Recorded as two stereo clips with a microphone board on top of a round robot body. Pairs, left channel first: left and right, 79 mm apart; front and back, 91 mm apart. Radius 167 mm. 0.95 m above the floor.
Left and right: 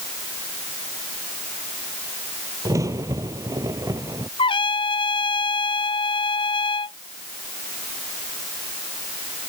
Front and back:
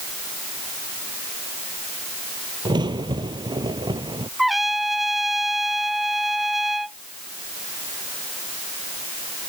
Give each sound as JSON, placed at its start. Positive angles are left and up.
{"t": 2.6, "sound": "a crack", "azimuth_deg": -140}
{"t": 4.4, "sound": "a trumpet", "azimuth_deg": 90}